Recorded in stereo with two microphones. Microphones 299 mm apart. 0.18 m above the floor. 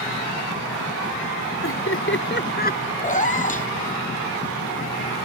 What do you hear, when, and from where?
1.6 s laughter: 45° left (ahead or behind); by 2.9 s 25° left (ahead or behind)
3.0 s a cat meowing: 25° left (ahead or behind)